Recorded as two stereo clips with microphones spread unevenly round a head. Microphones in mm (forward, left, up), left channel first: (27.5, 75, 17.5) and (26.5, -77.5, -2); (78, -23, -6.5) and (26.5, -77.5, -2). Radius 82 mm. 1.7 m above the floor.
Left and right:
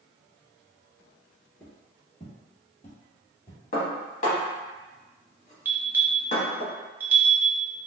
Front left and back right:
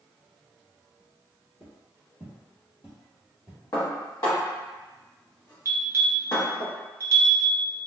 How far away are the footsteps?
About 1.8 m.